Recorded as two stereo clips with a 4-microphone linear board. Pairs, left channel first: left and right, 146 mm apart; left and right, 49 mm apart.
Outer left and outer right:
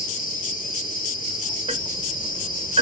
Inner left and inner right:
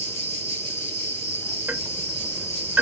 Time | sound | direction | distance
0.0 | an insect | 70° left (ahead or behind) | 3 m
1.7 | ticking | 40° right (ahead or behind) | 1.1 m